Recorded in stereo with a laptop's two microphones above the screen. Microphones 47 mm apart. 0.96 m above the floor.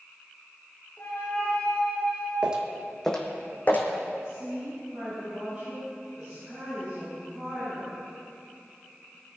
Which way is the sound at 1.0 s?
40° left (ahead or behind).